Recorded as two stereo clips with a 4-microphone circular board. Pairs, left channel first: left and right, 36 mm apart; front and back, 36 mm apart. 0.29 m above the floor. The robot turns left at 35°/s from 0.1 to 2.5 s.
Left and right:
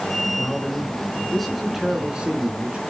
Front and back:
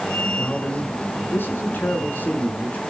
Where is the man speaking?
35° left, 4 m; by 2.8 s 40° right, 4 m.